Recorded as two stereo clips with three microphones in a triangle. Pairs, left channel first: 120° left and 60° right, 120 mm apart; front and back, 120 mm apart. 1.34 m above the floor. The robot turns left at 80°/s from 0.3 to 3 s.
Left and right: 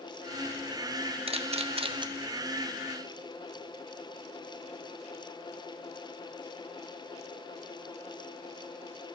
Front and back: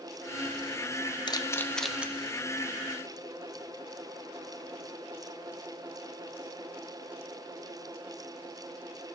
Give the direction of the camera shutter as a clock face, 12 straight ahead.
1 o'clock.